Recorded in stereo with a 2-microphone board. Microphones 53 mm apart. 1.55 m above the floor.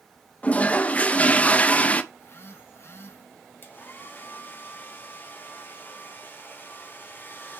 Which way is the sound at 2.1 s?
50° left (ahead or behind).